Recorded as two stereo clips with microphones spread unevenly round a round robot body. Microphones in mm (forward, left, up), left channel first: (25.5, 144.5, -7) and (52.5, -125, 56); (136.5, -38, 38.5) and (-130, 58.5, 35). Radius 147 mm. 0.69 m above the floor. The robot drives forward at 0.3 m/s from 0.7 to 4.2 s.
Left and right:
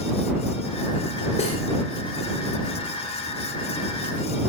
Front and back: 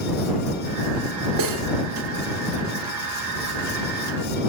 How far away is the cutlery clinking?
About 1.4 m.